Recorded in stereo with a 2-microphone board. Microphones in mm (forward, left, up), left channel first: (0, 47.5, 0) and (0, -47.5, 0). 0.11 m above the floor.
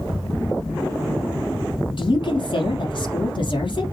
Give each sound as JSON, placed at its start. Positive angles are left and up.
{"t": 2.0, "sound": "a woman speaking", "side_deg": 55, "distance_m": 3.5}